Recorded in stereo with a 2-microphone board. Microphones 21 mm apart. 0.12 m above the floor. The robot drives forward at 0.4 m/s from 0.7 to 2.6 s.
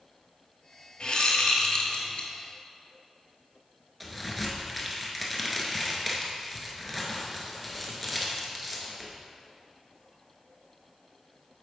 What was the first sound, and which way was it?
A whoosh, 45° left (ahead or behind).